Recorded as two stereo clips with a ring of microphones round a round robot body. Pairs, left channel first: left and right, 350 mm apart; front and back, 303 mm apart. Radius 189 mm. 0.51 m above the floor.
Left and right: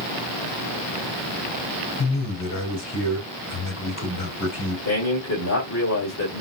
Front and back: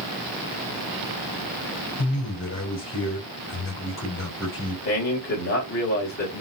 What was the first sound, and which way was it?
A man speaking, 45° left.